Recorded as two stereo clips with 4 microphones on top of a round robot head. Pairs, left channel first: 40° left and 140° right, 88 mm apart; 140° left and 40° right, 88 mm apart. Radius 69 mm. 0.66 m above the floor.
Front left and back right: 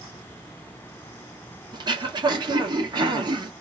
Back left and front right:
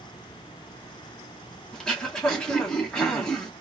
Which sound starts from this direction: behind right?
Throat clearing, at 1.7 s.